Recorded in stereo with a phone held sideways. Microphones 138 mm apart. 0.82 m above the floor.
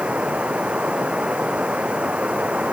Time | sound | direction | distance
0.0 | running water | 10° right (ahead or behind) | ?